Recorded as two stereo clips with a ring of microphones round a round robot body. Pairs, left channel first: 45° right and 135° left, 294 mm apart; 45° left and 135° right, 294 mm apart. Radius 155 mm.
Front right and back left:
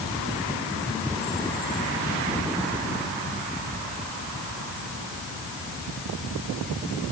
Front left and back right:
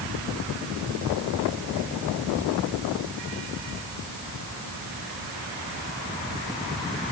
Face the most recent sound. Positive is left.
No sound to turn to.